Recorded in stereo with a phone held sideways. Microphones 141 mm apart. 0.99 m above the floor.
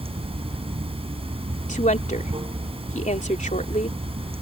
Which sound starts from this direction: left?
A woman speaking, at 1.7 s.